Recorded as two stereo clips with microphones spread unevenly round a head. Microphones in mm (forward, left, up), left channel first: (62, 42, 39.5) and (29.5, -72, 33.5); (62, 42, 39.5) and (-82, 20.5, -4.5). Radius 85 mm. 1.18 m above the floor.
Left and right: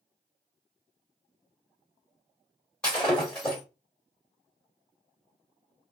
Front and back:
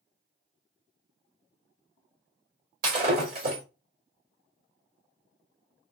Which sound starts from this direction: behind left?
Breaking glass, at 2.8 s.